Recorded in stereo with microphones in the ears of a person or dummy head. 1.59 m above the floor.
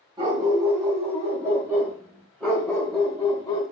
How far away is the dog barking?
About 2.5 m.